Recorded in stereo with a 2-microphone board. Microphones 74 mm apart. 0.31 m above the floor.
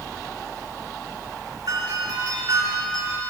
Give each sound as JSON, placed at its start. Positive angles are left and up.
{"t": 1.7, "sound": "a doorbell", "side_deg": -70, "distance_m": 5.5}